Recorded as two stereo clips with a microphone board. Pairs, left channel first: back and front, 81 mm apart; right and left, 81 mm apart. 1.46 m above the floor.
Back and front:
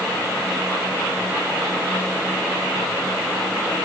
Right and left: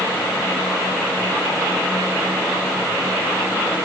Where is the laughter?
No laughter in this recording.